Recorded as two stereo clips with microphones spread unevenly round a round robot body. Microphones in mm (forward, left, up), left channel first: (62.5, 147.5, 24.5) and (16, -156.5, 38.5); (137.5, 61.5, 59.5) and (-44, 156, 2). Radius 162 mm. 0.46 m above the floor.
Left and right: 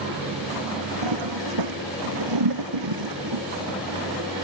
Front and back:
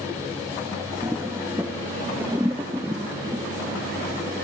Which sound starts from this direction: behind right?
A toilet flushing, at 1.0 s.